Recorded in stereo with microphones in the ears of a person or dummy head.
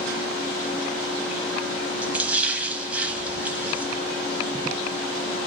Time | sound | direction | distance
2.0 | a splash | 5° right (ahead or behind) | 1.4 m